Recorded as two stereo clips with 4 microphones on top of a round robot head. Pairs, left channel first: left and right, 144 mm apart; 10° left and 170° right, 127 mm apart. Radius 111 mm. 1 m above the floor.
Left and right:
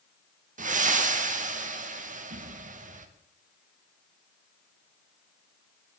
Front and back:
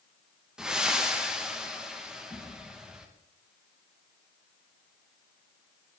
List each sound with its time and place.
0.6 s breathing: 90° right, 1.1 m